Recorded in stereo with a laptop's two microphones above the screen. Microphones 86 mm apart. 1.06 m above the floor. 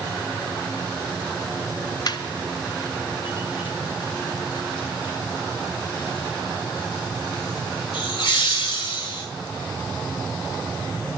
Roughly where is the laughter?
Left.